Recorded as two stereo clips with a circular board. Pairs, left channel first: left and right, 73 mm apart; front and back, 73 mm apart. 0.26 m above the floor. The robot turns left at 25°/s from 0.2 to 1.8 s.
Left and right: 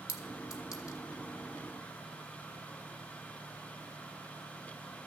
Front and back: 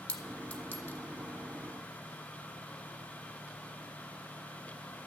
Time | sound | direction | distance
0.1 | a clink | 70° left | 1.0 m